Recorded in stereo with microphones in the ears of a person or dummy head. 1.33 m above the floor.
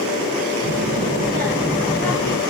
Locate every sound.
0.6 s a child speaking: 45° right (ahead or behind), 0.7 m; by 2.4 s 20° left (ahead or behind), 0.7 m